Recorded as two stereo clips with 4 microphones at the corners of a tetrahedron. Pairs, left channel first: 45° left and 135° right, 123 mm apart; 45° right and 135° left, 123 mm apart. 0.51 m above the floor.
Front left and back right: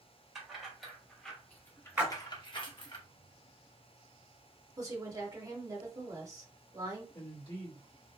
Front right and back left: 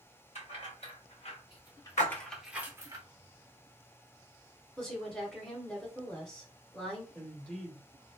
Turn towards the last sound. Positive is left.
turn(degrees=30)